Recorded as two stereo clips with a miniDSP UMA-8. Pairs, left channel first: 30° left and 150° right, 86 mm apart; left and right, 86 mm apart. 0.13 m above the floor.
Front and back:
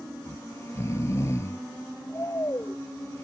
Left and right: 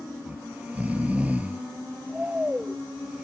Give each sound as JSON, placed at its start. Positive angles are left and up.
{"t": 0.3, "sound": "snoring", "azimuth_deg": -20}